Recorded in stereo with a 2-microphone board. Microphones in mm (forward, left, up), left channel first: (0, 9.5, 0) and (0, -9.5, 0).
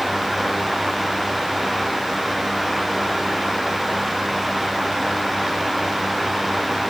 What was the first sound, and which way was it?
Only background noise.